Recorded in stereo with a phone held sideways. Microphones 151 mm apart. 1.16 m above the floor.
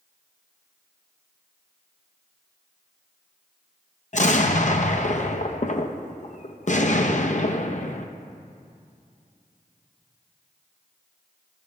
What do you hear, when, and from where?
4.1 s an explosion: 50° left (ahead or behind), 0.6 m